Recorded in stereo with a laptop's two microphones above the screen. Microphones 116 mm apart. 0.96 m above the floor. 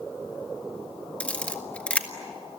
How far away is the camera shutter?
About 1.4 m.